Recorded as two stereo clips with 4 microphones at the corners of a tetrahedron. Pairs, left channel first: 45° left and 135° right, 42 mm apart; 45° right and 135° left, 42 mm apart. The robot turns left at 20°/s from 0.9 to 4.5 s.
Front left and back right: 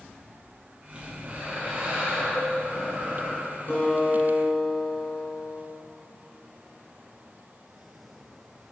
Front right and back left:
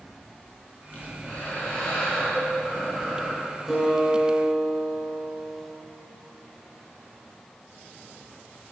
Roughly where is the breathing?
Right.